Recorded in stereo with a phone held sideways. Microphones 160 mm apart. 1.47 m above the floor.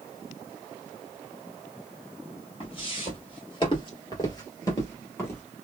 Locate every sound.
2.6 s footsteps: 35° left (ahead or behind), 1.9 m; by 5.4 s 15° left (ahead or behind), 1.8 m